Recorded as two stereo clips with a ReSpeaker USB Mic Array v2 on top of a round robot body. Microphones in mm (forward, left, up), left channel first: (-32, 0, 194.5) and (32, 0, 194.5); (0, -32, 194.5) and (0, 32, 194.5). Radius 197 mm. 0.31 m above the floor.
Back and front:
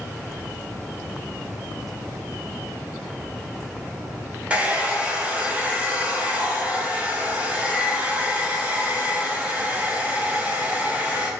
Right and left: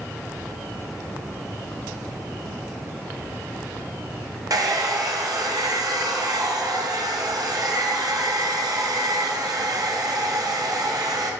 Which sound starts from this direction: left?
A hair dryer, at 4.5 s.